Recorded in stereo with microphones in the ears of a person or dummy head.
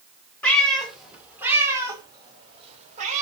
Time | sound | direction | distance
0.4 | a cat meowing | 10° left (ahead or behind) | 2.5 m